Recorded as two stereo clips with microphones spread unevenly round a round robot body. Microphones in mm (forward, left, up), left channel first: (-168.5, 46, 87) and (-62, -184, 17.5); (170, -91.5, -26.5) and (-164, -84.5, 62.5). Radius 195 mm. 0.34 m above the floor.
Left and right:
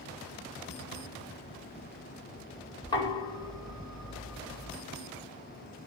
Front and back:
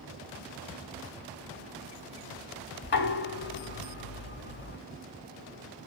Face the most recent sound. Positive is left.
turn(degrees=30)